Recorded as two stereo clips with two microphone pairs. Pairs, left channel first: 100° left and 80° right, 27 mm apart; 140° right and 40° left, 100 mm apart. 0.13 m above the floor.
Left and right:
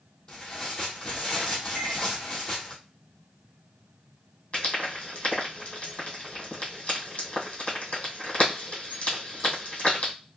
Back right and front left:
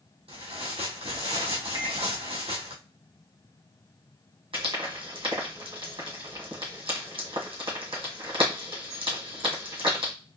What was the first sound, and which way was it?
Tearing paper, 30° left.